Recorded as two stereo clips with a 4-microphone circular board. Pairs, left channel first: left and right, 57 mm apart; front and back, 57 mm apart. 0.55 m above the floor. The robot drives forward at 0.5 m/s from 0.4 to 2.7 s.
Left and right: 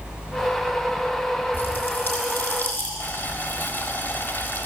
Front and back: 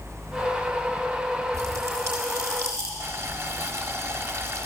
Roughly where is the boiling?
Behind left.